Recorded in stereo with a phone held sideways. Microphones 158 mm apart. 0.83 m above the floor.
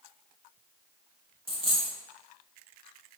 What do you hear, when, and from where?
1.5 s a dropped coin: 35° right (ahead or behind), 0.7 m